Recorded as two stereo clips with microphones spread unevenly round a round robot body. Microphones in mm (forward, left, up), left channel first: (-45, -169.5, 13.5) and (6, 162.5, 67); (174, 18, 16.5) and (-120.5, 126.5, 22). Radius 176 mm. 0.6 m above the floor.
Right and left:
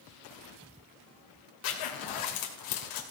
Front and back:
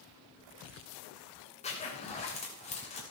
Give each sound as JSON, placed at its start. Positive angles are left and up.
{"t": 1.6, "sound": "a zipper", "azimuth_deg": -90, "distance_m": 2.5}